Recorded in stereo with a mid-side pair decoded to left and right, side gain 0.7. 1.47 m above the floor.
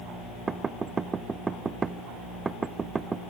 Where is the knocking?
20° right, 0.9 m.